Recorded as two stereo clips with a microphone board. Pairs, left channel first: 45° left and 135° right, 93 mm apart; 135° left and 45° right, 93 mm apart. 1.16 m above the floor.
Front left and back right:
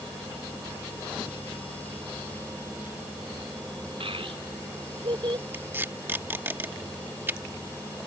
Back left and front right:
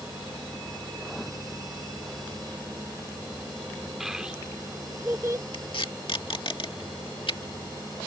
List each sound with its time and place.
4.0 s a child speaking: 130° right; by 5.4 s 100° right
5.5 s tape being pulled: 160° left